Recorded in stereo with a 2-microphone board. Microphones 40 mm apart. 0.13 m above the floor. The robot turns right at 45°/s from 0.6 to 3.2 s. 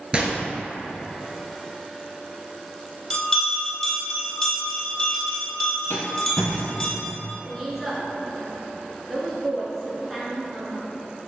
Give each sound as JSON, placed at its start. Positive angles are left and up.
{"t": 0.1, "sound": "a gunshot", "side_deg": -25, "distance_m": 0.7}
{"t": 3.1, "sound": "a bell", "side_deg": 20, "distance_m": 1.4}
{"t": 5.9, "sound": "a rattle", "side_deg": 80, "distance_m": 0.6}
{"t": 7.5, "sound": "a woman speaking", "side_deg": 0, "distance_m": 1.2}